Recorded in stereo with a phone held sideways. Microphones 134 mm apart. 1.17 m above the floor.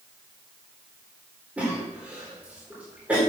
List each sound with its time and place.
1.6 s a cough: 10° right (ahead or behind), 4 m